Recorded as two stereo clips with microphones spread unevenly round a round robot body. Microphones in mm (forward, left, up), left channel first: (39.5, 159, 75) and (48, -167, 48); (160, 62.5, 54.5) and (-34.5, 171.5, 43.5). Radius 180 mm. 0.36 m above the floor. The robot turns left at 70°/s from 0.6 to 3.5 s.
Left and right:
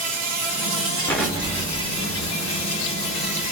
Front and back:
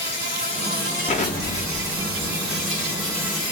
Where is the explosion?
5° left, 1.1 m; by 3.5 s 165° right, 1.1 m.